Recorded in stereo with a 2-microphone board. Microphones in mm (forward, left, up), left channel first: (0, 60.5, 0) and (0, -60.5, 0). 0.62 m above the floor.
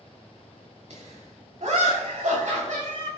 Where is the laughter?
60° right (ahead or behind), 4.5 m; by 3.1 s 75° right (ahead or behind), 4 m.